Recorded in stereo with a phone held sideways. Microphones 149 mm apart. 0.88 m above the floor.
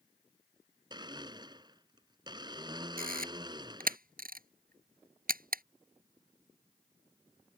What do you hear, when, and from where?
0.9 s a blender: 30° right (ahead or behind)
3.0 s a camera shutter: 75° right (ahead or behind)